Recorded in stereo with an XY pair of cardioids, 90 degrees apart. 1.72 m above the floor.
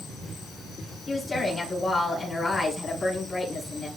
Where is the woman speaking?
35° left, 4.5 m.